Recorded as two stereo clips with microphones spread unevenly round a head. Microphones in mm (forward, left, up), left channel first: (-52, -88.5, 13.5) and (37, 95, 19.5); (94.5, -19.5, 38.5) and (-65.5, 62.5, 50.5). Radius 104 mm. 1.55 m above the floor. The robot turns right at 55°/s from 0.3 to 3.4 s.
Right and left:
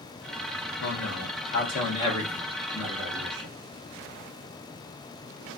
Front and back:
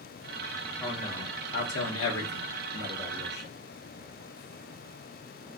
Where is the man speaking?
115° right, 1.3 m; by 3.5 s 30° left, 1.3 m.